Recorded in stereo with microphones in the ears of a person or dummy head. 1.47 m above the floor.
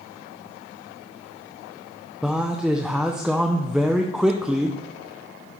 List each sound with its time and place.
2.2 s a man speaking: centre (ahead or behind), 0.6 m